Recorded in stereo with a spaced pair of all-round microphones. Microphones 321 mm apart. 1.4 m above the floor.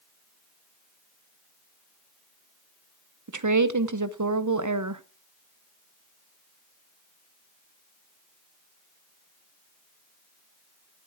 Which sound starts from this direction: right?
A woman speaking, at 3.3 s.